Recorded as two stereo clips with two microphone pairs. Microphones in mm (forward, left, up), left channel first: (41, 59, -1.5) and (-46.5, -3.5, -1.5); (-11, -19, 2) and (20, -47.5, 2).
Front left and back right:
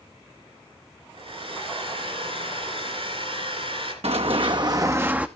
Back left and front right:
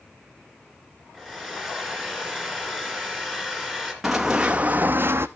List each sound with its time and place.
1.1 s a hair dryer: 140° right, 2.5 m
4.0 s running footsteps: 125° right, 0.7 m; by 5.3 s 65° right, 0.6 m